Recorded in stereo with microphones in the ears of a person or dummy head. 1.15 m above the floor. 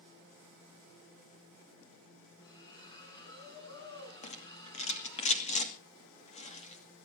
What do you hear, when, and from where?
2.4 s a splash: 20° left (ahead or behind), 8.5 m
4.2 s a rattle: 35° left (ahead or behind), 2 m